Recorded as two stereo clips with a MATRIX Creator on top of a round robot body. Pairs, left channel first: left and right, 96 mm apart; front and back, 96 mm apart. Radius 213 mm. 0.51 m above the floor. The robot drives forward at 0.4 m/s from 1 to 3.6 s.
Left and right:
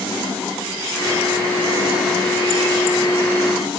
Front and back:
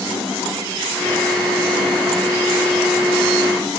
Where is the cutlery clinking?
I don't hear cutlery clinking.